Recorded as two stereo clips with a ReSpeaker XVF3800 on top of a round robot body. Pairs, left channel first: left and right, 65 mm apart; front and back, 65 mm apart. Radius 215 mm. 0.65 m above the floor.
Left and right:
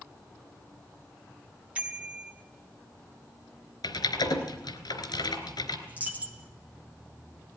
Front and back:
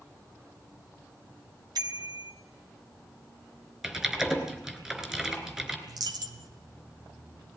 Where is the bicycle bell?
160° right, 2.5 m.